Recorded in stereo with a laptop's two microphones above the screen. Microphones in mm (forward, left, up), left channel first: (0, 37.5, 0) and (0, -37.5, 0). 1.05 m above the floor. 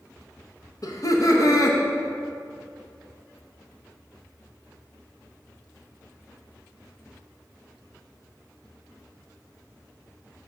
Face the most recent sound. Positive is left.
turn(degrees=50)  # may be behind; listen again after turning